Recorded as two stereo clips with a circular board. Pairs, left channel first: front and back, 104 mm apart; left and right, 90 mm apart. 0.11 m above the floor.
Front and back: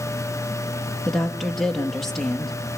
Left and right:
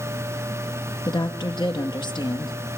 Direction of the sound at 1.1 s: 90° left.